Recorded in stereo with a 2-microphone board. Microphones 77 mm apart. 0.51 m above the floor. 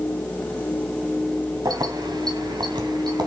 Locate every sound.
1.6 s keys jangling: 60° right (ahead or behind), 2.5 m; by 3.3 s 70° right (ahead or behind), 3 m